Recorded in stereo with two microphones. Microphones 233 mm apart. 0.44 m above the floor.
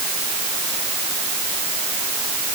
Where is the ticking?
No ticking in this recording.